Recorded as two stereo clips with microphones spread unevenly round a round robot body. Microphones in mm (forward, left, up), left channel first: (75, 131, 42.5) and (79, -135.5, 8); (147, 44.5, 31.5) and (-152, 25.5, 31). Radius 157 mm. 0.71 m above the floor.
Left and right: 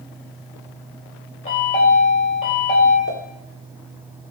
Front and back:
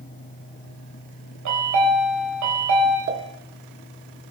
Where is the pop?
145° left, 1.5 m.